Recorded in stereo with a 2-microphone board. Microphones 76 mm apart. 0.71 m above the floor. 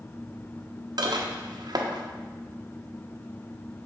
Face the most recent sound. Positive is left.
turn(degrees=-70)  # may be behind; listen again after turning